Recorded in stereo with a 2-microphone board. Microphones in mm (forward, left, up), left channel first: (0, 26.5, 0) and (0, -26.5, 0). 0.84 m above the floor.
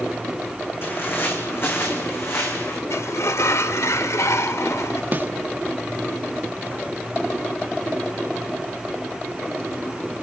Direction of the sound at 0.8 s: 45° left (ahead or behind).